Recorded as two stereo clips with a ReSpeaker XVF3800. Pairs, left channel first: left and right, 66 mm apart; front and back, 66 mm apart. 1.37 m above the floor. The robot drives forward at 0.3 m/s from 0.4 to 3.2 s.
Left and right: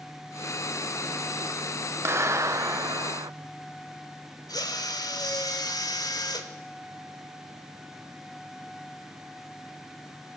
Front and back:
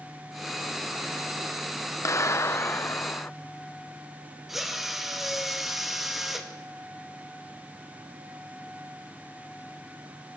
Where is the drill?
95° left, 2 m.